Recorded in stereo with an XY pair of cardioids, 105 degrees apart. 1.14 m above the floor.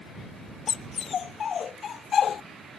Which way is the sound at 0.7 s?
45° left.